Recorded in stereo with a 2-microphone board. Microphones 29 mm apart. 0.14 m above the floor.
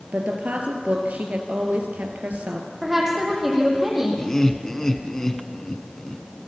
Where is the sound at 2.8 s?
15° right (ahead or behind), 7.5 m.